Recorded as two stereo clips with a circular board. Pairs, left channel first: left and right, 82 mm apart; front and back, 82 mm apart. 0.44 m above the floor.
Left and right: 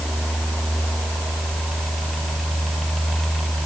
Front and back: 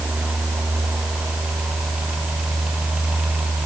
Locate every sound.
Only background noise.